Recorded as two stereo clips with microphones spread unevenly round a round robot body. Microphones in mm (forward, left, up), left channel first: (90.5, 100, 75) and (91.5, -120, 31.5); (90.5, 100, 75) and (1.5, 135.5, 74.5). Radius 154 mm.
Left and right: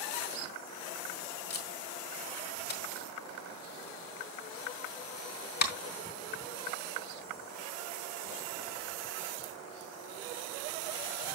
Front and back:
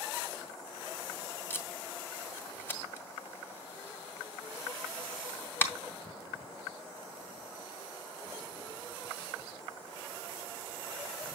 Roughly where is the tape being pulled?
Ahead left.